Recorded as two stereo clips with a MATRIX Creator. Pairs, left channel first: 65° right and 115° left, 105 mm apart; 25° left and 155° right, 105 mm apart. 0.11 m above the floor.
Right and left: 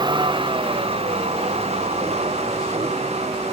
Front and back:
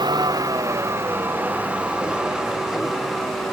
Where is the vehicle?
155° left; by 3.5 s 110° left.